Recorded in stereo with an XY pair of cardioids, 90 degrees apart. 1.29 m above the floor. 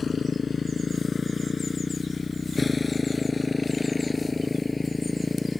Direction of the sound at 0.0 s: 45° left.